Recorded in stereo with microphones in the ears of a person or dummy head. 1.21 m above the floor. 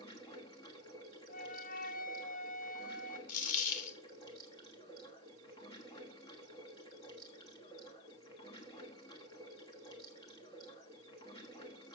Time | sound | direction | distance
0.0 | running water | 25° left (ahead or behind) | 1.2 m
1.3 | a flute | 45° left (ahead or behind) | 0.7 m
3.3 | a dropped coin | 45° left (ahead or behind) | 1.5 m